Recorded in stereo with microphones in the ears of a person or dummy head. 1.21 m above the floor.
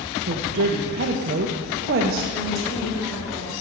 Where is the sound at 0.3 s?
50° right (ahead or behind), 0.6 m.